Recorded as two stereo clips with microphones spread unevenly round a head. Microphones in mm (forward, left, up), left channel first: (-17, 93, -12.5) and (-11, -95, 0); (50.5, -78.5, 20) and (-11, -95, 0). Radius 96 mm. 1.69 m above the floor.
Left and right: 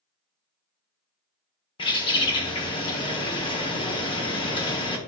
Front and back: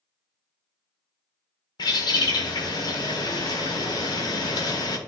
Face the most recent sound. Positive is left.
turn(degrees=25)